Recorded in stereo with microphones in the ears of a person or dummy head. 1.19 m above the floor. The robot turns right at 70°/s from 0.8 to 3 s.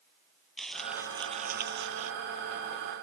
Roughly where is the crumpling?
Behind.